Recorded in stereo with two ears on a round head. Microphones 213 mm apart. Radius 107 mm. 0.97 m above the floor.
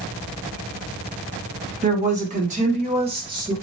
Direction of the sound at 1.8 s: 30° right (ahead or behind).